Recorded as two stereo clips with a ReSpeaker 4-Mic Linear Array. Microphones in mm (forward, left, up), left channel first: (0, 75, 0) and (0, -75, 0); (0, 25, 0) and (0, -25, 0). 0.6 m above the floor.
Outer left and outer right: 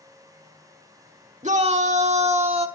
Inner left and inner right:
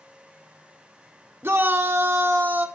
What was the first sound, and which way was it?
A shout, 50° right (ahead or behind).